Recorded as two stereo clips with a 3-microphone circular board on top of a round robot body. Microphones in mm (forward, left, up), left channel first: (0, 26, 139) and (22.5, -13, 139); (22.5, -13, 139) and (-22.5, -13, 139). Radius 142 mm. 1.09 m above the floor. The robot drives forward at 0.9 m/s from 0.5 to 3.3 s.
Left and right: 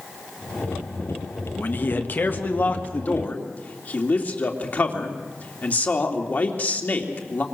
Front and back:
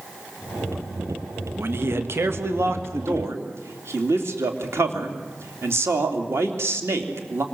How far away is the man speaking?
About 1.8 m.